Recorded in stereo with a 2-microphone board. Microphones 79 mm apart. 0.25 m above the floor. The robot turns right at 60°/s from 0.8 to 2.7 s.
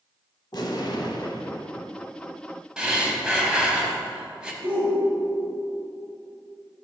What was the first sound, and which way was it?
An explosion, 80° left.